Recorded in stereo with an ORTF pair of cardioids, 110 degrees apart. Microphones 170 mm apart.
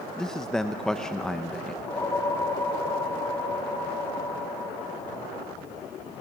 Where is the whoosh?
20° left, 4 m.